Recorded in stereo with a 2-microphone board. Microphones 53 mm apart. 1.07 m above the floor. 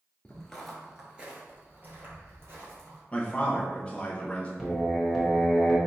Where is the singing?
Centre (ahead or behind), 1.3 m.